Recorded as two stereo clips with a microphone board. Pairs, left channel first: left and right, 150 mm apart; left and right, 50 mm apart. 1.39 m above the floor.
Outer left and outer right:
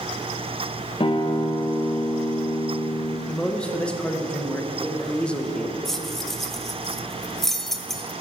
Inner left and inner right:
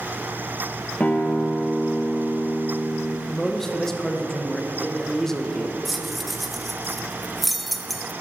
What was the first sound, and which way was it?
A guitar, 35° left (ahead or behind).